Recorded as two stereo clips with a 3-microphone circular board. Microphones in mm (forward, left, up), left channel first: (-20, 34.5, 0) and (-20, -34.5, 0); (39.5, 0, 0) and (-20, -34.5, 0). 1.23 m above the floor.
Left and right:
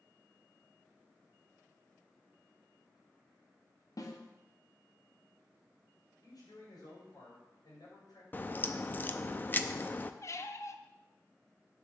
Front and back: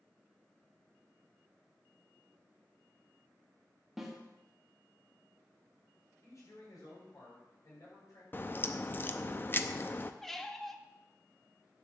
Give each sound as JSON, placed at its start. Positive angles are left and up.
{"t": 4.0, "sound": "a snare drum", "azimuth_deg": 125, "distance_m": 1.6}
{"t": 6.2, "sound": "a man speaking", "azimuth_deg": 70, "distance_m": 6.5}
{"t": 8.3, "sound": "a crack", "azimuth_deg": 55, "distance_m": 0.6}
{"t": 10.2, "sound": "a squeak", "azimuth_deg": 115, "distance_m": 0.7}